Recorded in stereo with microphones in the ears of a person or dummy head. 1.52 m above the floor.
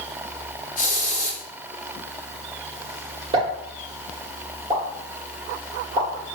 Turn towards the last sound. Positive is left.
turn(degrees=-25)  # may be behind; listen again after turning